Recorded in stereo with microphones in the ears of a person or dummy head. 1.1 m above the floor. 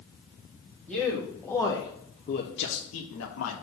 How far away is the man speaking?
About 1.5 m.